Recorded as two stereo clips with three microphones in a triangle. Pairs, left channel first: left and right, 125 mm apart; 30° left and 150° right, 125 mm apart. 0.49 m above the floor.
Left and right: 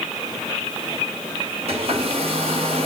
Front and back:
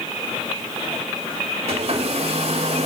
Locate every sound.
1.7 s a hair dryer: 120° right, 4 m